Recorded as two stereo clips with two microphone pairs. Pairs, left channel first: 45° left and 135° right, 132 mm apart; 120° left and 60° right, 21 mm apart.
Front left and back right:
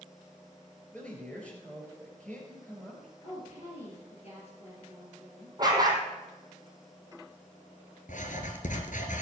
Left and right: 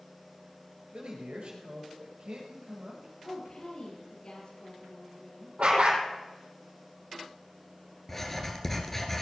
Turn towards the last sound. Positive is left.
turn(degrees=45)